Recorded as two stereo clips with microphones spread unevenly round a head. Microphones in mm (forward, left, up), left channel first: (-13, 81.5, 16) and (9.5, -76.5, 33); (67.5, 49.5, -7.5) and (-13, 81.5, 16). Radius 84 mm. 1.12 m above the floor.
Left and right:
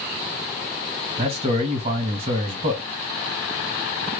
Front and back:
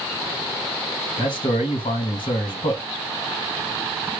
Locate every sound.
1.2 s a man speaking: 30° right, 1.8 m